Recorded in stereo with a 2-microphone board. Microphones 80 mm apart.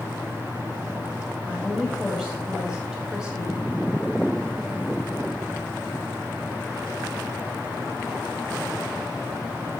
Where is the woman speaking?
10° right (ahead or behind), 1.7 m.